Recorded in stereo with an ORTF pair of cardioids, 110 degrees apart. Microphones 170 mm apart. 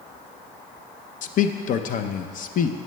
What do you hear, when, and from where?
1.2 s a man speaking: 55° left, 0.6 m